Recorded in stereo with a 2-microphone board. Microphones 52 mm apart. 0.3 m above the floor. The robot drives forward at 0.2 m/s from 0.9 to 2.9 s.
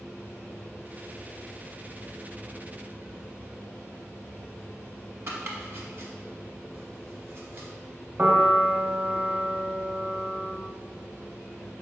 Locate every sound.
5.3 s chopping: 50° right (ahead or behind), 0.8 m
8.2 s a piano: 35° right (ahead or behind), 0.7 m